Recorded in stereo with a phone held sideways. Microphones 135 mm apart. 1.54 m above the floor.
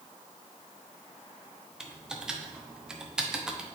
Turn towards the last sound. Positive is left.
turn(degrees=-5)  # may be behind; listen again after turning